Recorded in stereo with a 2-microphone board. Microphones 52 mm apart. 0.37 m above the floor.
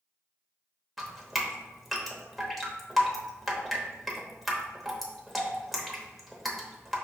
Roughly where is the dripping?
Centre.